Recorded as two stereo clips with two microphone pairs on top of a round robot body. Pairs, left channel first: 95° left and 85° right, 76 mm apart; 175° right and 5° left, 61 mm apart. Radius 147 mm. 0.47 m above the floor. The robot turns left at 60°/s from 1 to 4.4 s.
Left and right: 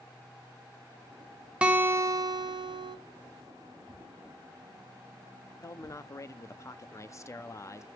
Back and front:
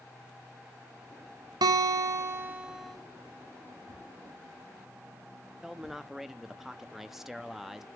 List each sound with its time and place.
1.6 s a guitar: 5° right, 0.8 m; by 3.0 s 90° right, 0.8 m
3.9 s a thud: 30° left, 3.5 m; by 6.1 s 5° right, 3.5 m
5.6 s a man speaking: 95° left, 0.8 m